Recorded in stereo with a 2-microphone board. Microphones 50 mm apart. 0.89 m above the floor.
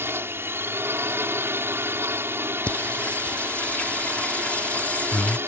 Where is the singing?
25° left (ahead or behind).